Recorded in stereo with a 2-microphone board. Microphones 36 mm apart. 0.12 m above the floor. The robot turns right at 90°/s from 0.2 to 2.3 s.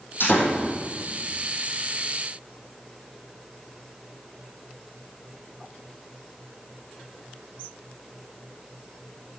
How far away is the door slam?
About 4 m.